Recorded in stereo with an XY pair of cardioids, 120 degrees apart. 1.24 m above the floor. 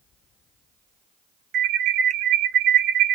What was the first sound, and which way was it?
An alarm, 70° right.